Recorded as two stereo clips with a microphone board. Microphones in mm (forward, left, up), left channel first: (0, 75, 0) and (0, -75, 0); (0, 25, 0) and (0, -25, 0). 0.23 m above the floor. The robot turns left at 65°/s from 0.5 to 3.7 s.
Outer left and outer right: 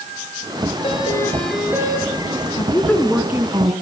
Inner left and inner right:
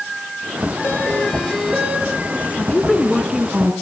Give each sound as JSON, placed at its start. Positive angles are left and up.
{"t": 0.8, "sound": "a doorbell", "azimuth_deg": 45, "distance_m": 6.0}
{"t": 2.6, "sound": "a woman speaking", "azimuth_deg": 35, "distance_m": 3.0}